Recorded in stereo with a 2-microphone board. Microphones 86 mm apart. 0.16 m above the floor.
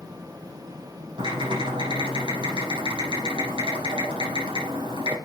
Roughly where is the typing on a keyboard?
Right.